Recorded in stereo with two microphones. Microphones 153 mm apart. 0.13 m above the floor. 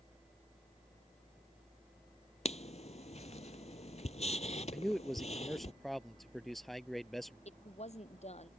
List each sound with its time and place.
2.5 s writing: 50° left (ahead or behind)
4.7 s a man speaking: centre (ahead or behind)
7.5 s a woman speaking: 45° left (ahead or behind)